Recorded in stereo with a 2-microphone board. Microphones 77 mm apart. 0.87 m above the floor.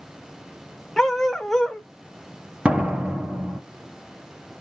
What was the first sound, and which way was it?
A dog barking, 5° left (ahead or behind).